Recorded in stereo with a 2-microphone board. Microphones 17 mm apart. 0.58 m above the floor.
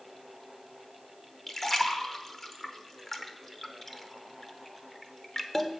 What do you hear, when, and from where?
1.5 s a splash: 20° left (ahead or behind), 0.9 m